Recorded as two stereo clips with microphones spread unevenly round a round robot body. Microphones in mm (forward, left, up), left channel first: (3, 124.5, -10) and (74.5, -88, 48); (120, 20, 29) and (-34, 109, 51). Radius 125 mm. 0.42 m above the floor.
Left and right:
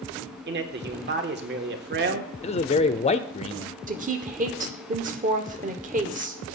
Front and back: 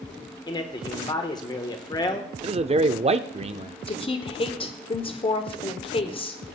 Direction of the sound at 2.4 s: 105° left.